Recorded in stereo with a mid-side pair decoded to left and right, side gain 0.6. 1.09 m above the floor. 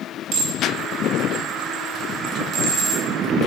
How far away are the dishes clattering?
About 3.5 m.